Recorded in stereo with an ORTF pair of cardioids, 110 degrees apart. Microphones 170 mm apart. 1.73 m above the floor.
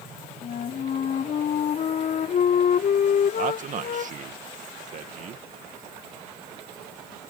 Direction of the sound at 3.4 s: 50° right.